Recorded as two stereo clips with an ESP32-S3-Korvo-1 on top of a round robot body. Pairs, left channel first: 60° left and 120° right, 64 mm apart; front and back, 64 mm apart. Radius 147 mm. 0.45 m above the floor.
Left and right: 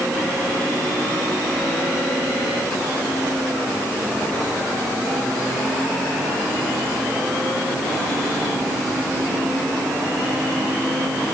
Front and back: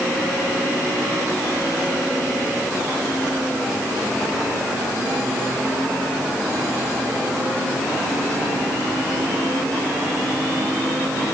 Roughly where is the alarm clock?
No alarm clock in this recording.